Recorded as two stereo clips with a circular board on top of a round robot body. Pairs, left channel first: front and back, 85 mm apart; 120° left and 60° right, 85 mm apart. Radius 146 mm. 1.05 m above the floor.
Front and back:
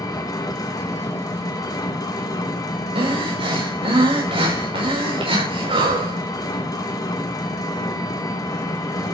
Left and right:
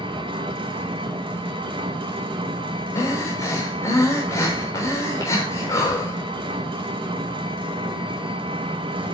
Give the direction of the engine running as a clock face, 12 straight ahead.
2 o'clock.